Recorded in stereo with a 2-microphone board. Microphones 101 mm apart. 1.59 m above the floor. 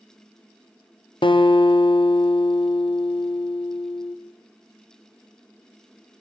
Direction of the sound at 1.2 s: 55° left (ahead or behind).